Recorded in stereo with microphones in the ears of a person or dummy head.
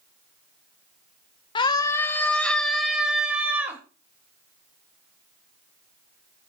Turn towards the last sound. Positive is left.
turn(degrees=-10)  # may be behind; listen again after turning